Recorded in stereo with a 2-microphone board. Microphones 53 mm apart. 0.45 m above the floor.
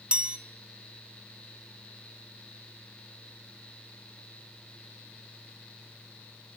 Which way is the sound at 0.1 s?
20° right (ahead or behind).